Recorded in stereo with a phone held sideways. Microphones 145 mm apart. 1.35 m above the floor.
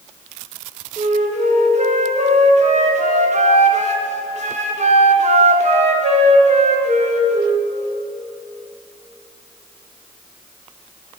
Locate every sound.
1.0 s a flute: 55° right (ahead or behind), 0.7 m